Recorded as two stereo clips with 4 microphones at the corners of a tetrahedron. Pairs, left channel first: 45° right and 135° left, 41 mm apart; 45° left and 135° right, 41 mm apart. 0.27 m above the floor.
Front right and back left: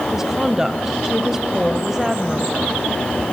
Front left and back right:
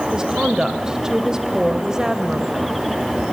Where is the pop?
No pop in this recording.